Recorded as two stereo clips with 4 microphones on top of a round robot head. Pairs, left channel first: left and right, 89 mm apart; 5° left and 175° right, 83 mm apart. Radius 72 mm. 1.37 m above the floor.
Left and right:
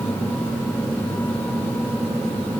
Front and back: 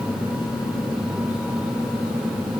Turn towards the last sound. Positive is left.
No sound to turn to.